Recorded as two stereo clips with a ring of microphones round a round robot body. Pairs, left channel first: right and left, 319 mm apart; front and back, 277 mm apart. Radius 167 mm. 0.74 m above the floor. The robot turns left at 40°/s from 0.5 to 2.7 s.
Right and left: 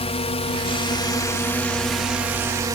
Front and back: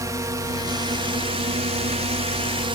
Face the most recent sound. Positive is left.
turn(degrees=150)